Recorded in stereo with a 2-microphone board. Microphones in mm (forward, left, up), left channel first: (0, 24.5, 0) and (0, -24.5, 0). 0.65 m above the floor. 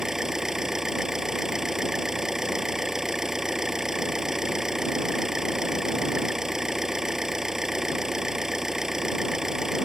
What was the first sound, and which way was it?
An engine running, 10° right (ahead or behind).